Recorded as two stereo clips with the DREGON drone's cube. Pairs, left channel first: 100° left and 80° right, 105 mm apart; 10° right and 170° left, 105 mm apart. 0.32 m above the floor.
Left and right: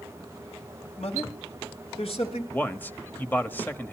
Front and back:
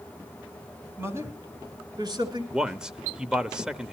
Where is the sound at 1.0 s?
105° left, 3.5 m; by 2.4 s 125° left, 5 m.